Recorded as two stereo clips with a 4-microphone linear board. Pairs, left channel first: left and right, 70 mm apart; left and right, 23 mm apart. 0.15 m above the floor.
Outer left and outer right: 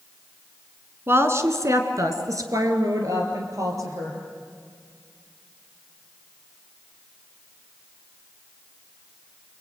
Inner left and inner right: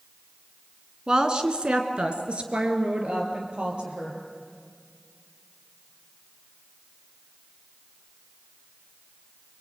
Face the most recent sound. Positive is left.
turn(degrees=-50)  # may be behind; listen again after turning